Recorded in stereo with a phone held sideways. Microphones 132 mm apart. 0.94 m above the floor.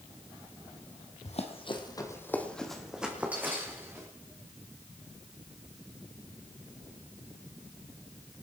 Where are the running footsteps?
55° left (ahead or behind), 2.0 m; by 4.1 s 20° right (ahead or behind), 4 m.